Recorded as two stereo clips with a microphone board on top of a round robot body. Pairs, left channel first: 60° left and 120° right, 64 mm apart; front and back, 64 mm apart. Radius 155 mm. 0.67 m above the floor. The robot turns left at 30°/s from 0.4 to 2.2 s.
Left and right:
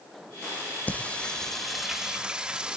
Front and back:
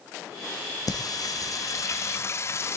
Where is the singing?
5° right, 0.9 m; by 2.8 s 45° right, 0.9 m.